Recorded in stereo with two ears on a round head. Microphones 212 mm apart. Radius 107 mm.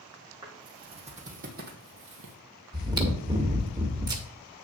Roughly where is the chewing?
Centre.